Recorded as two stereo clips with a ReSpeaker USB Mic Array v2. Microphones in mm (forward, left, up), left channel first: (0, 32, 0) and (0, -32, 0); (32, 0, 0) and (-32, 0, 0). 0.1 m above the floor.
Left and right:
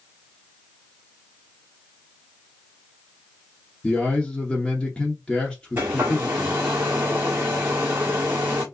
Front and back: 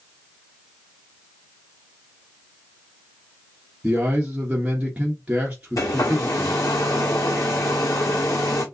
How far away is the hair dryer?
About 1.4 m.